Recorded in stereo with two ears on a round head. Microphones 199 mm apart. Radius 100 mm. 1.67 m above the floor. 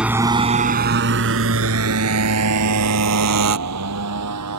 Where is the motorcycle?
5° right (ahead or behind); by 4.6 s 85° right.